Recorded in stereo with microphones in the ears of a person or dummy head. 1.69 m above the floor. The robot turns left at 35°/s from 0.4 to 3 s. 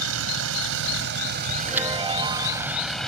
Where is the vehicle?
90° right; by 3.1 s 175° left.